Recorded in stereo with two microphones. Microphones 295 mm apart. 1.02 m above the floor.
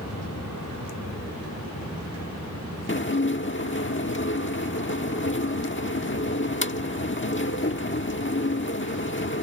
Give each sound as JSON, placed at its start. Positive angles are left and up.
{"t": 0.0, "sound": "an aircraft", "side_deg": 60}
{"t": 2.9, "sound": "dishes clattering", "side_deg": 40}